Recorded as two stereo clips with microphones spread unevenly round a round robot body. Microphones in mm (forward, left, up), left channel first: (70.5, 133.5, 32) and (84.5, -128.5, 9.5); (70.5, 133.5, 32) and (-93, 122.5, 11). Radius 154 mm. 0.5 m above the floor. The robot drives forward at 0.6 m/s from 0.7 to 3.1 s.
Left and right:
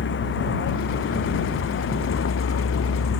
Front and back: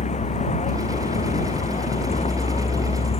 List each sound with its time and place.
0.0 s a vehicle: 50° left; by 3.2 s 55° left